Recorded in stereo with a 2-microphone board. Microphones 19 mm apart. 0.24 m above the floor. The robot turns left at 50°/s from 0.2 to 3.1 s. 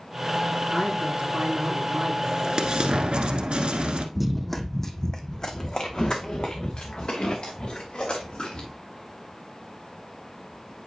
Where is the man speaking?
25° right, 4 m; by 2.1 s 95° right, 4 m.